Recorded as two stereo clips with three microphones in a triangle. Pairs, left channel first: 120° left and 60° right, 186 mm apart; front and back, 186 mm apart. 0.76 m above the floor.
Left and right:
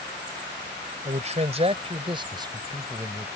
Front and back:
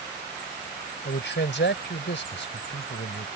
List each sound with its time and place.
1.1 s a man speaking: 10° right; by 3.3 s 15° left